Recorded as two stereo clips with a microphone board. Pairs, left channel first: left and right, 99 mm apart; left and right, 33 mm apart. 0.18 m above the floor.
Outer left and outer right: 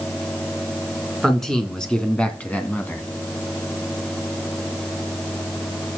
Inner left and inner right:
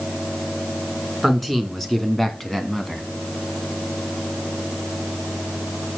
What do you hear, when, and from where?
1.2 s a man speaking: 5° left (ahead or behind), 2.5 m; by 3.0 s 20° left (ahead or behind), 1.9 m